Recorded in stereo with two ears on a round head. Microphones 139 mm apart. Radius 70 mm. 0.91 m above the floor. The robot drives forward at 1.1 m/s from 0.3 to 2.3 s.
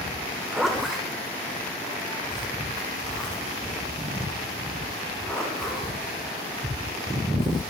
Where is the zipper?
5° right (ahead or behind), 0.8 m; by 7.6 s centre (ahead or behind), 2.5 m.